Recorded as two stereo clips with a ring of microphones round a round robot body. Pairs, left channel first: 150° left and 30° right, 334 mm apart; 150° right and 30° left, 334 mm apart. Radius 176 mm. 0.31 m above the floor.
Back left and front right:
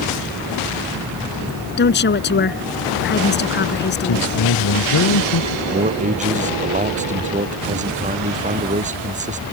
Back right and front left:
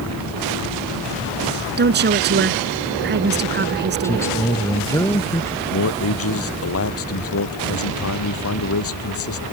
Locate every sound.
1.8 s a woman speaking: 90° left
4.0 s a man speaking: 130° left
5.7 s a man speaking: 100° right